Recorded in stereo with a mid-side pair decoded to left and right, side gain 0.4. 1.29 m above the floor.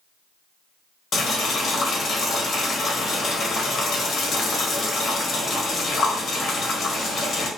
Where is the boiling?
55° left, 1.1 m.